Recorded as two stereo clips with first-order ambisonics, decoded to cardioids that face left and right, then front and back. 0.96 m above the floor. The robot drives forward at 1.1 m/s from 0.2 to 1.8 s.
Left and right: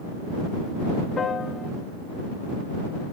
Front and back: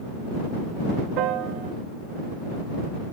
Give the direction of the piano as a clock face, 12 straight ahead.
7 o'clock.